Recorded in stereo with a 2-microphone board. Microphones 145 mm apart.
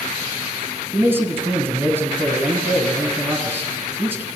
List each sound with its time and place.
0.9 s a man speaking: 15° right (ahead or behind), 1.7 m